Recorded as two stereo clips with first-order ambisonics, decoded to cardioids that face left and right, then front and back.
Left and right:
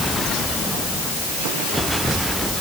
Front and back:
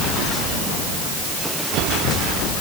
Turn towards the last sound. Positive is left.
No sound to turn to.